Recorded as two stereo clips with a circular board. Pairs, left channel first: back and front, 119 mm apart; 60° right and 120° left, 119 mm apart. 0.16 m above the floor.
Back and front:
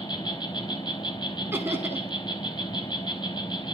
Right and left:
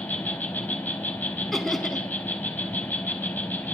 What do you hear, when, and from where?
0.0 s an insect: 130° right, 1.5 m
1.5 s laughter: 25° left, 1.0 m